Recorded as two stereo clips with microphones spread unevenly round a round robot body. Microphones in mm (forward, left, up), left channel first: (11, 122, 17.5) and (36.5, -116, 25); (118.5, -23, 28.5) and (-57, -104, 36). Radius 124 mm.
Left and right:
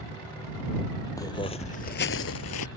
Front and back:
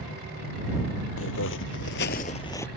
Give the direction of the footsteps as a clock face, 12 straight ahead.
11 o'clock.